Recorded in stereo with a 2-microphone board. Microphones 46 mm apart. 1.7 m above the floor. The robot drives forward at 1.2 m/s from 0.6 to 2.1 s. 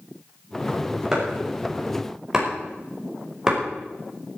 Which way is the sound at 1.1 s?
10° right (ahead or behind).